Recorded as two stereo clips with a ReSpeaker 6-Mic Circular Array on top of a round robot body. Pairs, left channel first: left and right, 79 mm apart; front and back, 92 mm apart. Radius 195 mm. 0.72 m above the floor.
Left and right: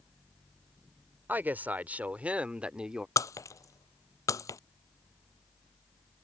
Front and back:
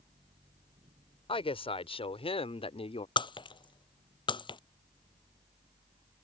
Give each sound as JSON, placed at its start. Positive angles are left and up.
{"t": 1.3, "sound": "a woman speaking", "azimuth_deg": -20}
{"t": 3.2, "sound": "breaking glass", "azimuth_deg": 40}